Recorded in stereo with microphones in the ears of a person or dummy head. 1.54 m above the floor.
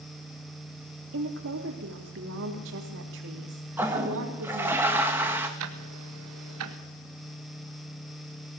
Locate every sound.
1.1 s a woman speaking: 65° right (ahead or behind), 4 m
3.8 s a toilet flushing: 5° right (ahead or behind), 2 m
5.6 s ticking: 80° right, 1.7 m